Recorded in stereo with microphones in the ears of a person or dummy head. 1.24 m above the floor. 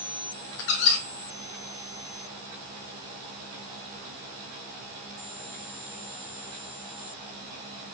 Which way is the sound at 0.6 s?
60° left (ahead or behind).